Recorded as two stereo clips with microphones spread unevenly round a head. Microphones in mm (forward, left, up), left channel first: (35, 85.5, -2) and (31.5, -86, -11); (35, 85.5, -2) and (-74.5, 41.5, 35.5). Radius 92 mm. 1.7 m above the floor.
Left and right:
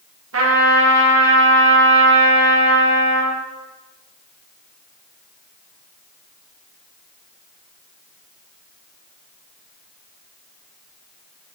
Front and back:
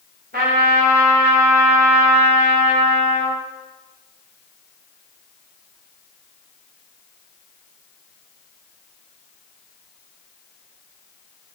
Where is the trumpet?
115° right, 2 m.